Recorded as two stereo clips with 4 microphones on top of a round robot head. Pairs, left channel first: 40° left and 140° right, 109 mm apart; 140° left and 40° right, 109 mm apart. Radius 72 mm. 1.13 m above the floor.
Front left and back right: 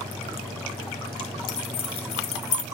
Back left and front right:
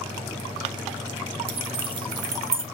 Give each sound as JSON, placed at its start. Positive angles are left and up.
{"t": 1.5, "sound": "keys jangling", "azimuth_deg": -5, "distance_m": 1.5}